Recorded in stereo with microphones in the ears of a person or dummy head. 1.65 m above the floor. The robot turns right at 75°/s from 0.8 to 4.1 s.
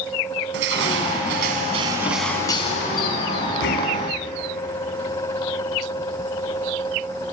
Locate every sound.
0.5 s crushing: 105° right, 3 m; by 4.1 s 140° left, 3 m